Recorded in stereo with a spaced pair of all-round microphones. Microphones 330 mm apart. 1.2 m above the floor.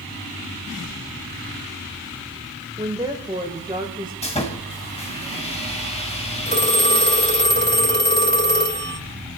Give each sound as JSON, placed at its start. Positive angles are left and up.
{"t": 2.8, "sound": "a woman speaking", "side_deg": -15, "distance_m": 1.4}
{"t": 4.2, "sound": "sawing", "side_deg": 20, "distance_m": 1.7}
{"t": 6.5, "sound": "a phone ringing", "side_deg": -30, "distance_m": 3.0}